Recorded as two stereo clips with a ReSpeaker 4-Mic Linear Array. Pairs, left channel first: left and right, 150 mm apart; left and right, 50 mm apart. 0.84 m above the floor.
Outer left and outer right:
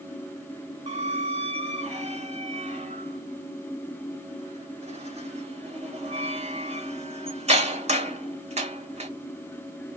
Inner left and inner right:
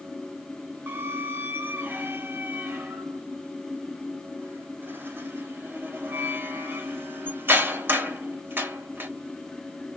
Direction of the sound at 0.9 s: 45° right (ahead or behind).